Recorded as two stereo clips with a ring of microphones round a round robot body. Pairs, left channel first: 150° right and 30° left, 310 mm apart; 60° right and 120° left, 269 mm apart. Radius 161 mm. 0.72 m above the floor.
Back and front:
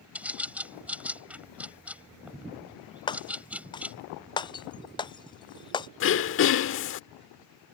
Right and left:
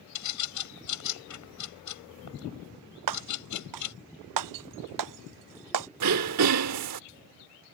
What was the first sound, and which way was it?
A bird, 55° right.